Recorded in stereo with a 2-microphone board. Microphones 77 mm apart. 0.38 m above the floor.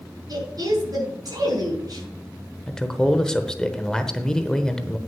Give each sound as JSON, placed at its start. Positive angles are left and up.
{"t": 0.3, "sound": "a woman speaking", "side_deg": -55, "distance_m": 5.0}
{"t": 2.7, "sound": "a man speaking", "side_deg": 10, "distance_m": 1.0}